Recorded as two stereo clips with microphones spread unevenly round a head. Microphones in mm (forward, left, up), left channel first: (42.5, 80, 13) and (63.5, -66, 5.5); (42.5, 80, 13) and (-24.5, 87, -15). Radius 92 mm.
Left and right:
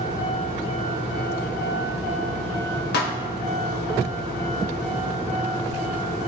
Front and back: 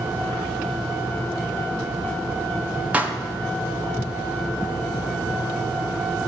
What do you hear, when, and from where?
2.9 s a pop: 100° left, 1.1 m